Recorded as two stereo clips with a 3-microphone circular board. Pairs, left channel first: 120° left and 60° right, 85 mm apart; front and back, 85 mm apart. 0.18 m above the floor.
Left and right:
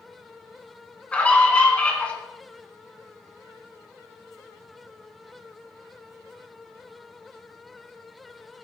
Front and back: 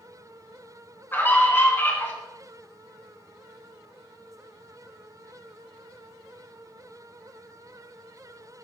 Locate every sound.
1.1 s a scream: 50° left, 1.4 m